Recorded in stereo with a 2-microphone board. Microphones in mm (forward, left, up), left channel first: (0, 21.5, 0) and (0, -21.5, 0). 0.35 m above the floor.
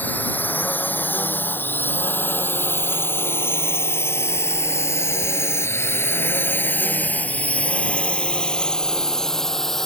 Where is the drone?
45° left (ahead or behind); by 9.8 s 5° left (ahead or behind).